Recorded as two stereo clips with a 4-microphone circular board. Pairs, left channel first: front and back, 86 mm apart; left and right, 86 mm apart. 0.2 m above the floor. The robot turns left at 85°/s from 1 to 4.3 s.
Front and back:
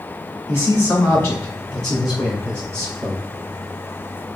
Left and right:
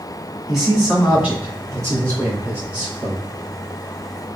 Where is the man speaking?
5° right, 1.8 m; by 3.2 s 165° left, 1.8 m.